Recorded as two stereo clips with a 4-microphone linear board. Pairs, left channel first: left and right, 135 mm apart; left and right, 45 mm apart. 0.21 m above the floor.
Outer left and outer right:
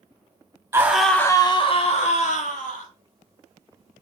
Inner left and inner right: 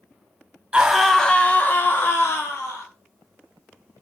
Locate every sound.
0.7 s a scream: 20° right (ahead or behind), 1.1 m; by 2.9 s 65° left (ahead or behind), 2.5 m